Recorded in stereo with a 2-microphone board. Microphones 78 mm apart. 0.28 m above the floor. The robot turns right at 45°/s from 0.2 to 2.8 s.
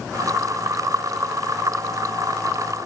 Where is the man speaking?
I don't hear a man speaking.